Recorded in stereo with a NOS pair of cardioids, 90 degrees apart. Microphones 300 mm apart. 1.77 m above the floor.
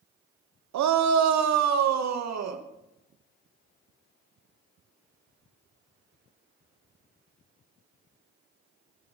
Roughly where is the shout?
Right.